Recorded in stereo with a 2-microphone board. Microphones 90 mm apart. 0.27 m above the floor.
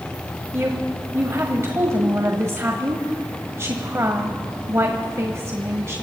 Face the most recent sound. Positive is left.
turn(degrees=-35)  # may be behind; listen again after turning